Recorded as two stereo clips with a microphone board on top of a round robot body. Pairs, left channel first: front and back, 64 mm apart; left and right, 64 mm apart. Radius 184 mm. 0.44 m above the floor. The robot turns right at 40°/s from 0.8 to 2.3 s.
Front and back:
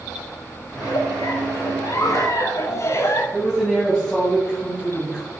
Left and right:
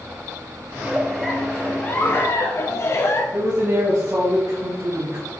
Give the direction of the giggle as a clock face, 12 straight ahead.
1 o'clock.